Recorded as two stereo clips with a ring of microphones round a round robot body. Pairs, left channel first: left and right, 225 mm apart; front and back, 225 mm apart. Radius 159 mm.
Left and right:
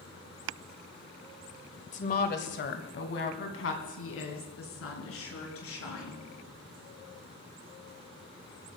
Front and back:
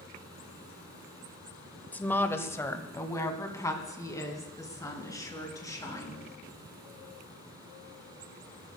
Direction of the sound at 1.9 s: 75° left.